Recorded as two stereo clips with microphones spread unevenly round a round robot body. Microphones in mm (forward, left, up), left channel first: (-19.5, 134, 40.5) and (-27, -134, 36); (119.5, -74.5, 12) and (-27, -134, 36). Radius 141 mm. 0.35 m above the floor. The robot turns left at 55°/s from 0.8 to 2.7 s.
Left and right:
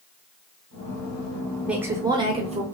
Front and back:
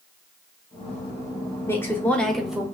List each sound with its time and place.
1.7 s a woman speaking: 10° right, 0.9 m; by 2.6 s 65° right, 0.9 m